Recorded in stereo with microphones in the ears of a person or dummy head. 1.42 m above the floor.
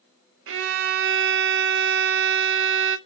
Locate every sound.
0.5 s a violin: 65° right (ahead or behind), 0.6 m